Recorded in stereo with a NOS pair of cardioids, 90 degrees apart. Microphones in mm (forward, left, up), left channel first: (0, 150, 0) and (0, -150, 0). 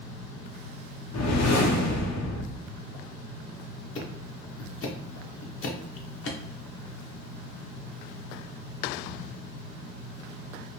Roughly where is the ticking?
Ahead left.